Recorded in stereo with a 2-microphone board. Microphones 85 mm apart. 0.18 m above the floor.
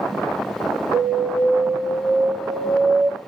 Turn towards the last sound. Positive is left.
turn(degrees=10)  # may be behind; listen again after turning